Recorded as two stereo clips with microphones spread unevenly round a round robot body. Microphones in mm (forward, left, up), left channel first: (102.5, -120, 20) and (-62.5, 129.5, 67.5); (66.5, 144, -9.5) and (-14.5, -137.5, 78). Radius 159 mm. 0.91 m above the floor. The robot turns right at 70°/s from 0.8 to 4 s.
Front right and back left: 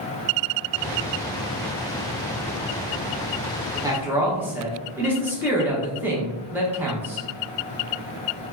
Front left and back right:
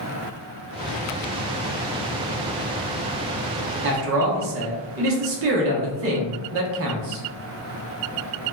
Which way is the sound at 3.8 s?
155° right.